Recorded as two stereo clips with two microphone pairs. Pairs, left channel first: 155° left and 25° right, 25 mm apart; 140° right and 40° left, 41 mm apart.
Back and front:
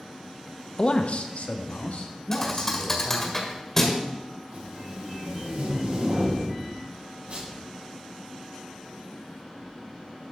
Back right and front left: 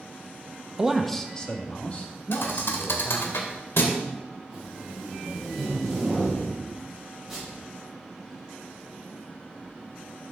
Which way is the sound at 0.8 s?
110° left.